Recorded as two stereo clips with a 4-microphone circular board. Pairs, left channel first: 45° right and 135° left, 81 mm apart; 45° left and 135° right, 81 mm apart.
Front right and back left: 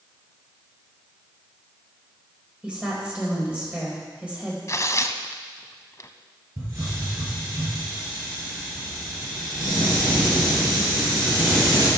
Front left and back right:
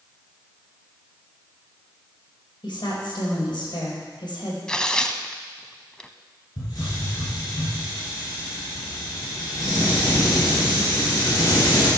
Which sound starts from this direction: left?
A hiss, at 6.6 s.